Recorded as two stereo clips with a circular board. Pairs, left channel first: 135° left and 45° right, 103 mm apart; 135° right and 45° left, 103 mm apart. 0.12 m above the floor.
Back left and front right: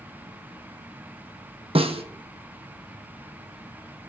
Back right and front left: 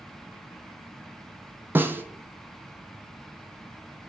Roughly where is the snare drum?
Ahead right.